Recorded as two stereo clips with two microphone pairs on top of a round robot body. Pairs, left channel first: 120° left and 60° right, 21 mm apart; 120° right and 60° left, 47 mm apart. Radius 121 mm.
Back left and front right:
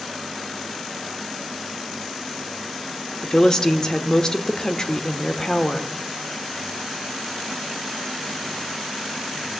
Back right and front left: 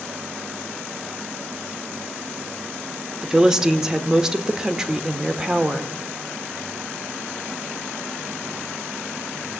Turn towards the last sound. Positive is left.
turn(degrees=100)